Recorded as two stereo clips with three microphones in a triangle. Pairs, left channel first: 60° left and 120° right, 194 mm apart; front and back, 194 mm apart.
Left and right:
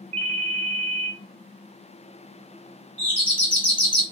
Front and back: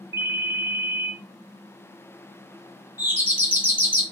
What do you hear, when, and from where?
0.1 s a ringtone: 120° right, 0.7 m
3.0 s a doorbell: 130° left, 1.9 m